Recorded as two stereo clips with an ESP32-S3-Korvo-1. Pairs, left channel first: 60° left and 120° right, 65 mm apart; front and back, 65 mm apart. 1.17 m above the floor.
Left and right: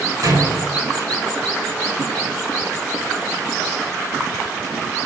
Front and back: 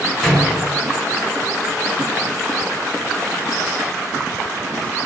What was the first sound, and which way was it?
A door slam, 90° right.